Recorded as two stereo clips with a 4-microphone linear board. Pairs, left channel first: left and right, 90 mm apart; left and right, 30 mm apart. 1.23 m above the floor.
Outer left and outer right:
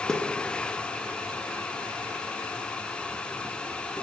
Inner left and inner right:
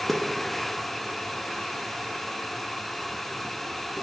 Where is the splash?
10° left (ahead or behind), 0.6 m.